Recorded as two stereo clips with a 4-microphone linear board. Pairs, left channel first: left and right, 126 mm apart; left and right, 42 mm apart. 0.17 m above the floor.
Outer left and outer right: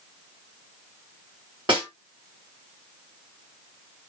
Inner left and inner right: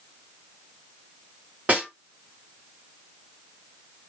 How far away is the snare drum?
About 2 m.